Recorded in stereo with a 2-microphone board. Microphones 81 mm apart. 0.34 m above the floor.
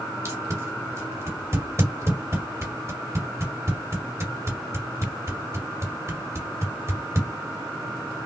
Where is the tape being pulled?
40° right (ahead or behind), 1.8 m.